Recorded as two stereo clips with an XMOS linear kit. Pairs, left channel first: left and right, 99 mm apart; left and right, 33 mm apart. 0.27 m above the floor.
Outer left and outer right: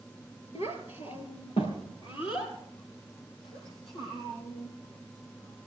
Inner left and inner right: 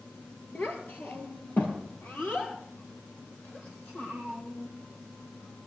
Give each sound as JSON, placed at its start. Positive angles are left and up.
{"t": 0.6, "sound": "a child speaking", "side_deg": 75, "distance_m": 3.0}